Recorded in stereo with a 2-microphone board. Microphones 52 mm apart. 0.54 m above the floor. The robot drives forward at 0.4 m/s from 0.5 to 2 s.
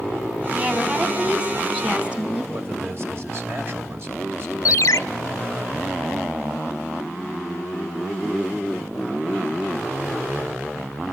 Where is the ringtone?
75° left (ahead or behind), 0.6 m.